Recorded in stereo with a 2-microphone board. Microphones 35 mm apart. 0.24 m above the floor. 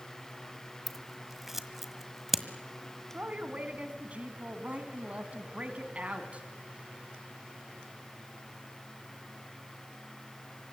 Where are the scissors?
5° right (ahead or behind), 1.5 m.